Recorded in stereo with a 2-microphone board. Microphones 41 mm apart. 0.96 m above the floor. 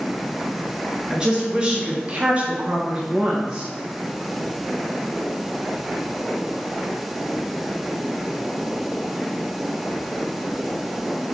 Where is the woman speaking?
20° right (ahead or behind), 1.2 m.